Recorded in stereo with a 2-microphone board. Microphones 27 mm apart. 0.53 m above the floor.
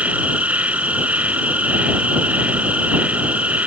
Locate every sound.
0.0 s an insect: 65° right (ahead or behind)